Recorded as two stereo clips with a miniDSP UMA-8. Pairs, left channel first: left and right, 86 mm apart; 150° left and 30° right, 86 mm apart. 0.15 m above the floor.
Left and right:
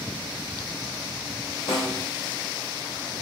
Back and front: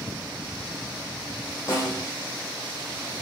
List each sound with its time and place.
1.7 s a snare drum: 110° left, 5.5 m